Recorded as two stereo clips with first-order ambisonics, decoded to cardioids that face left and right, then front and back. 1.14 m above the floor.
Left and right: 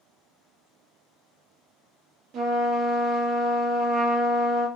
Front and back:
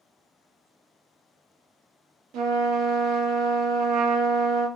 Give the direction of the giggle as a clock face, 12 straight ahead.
I don't hear a giggle.